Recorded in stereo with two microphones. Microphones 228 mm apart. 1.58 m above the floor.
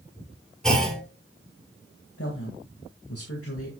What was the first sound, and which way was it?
A clunk, 5° left (ahead or behind).